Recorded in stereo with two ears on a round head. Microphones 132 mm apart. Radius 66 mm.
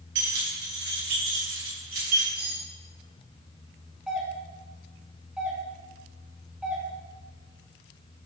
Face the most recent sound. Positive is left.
turn(degrees=-5)  # may be behind; listen again after turning